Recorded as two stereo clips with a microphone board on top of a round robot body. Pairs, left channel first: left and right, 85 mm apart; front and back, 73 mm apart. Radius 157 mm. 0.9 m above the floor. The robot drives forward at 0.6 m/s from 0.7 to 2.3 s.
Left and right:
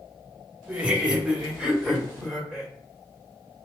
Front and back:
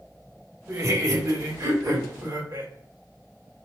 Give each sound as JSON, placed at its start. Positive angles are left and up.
{"t": 0.7, "sound": "laughter", "azimuth_deg": -160, "distance_m": 1.0}